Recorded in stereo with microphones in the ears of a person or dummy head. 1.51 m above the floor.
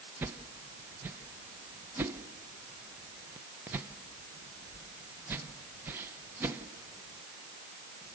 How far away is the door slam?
No door slam in this recording.